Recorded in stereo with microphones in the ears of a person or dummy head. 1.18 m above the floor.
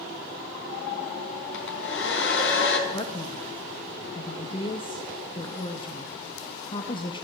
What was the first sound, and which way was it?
A hair dryer, 80° left.